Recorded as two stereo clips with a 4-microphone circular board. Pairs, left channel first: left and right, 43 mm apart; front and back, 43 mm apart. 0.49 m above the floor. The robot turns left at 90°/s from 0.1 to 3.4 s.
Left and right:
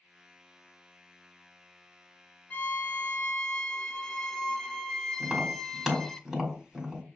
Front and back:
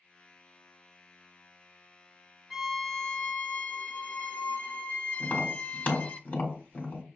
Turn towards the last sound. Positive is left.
turn(degrees=-10)